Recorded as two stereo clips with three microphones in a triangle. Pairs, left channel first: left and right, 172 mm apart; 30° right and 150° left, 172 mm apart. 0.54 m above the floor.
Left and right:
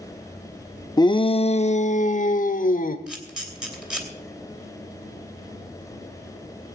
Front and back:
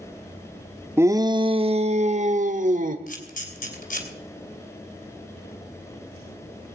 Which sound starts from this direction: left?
A shout, at 1.0 s.